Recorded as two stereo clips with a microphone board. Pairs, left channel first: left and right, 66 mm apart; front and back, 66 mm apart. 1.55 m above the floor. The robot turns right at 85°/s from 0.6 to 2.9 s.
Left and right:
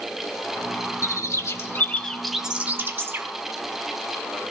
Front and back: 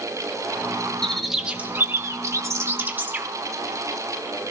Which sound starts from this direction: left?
A bird, at 1.0 s.